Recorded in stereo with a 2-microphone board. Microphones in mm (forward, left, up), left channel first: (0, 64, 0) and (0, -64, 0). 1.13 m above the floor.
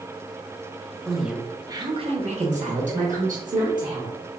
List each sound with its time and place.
1.1 s a woman speaking: 5° left (ahead or behind), 0.9 m; by 4.2 s 80° right, 2 m